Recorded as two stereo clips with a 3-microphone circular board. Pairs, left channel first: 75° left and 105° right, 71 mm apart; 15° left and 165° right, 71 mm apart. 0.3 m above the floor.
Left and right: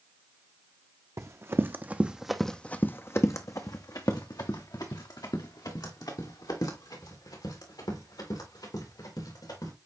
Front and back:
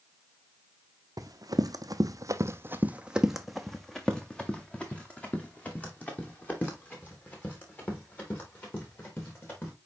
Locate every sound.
1.2 s running footsteps: 145° right, 0.9 m; by 9.7 s 75° left, 4.5 m